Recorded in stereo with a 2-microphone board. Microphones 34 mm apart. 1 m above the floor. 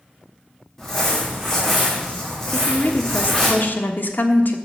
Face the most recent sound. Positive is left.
turn(degrees=65)  # may be behind; listen again after turning